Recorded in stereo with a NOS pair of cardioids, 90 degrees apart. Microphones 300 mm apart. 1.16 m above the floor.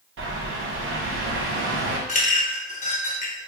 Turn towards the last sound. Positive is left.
turn(degrees=25)